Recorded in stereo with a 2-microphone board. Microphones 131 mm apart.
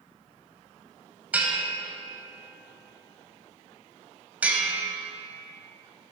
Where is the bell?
10° right (ahead or behind), 0.9 m.